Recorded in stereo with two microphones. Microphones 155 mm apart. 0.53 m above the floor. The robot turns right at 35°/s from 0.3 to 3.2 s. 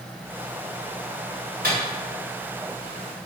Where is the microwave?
65° right (ahead or behind), 1.9 m.